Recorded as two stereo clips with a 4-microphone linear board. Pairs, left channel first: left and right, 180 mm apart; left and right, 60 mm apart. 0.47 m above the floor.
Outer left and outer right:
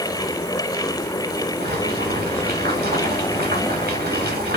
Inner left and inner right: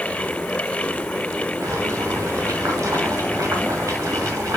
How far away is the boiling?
About 2.5 m.